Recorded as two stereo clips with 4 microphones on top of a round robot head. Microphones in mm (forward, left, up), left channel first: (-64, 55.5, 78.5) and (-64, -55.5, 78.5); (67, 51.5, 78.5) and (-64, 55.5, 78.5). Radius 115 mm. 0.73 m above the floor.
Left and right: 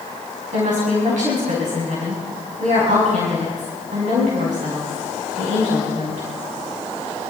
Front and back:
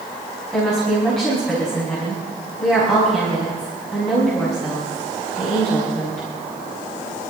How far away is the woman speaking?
About 6 m.